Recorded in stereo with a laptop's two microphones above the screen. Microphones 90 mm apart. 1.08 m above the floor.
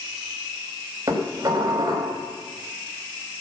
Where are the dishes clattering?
40° right (ahead or behind), 3.5 m.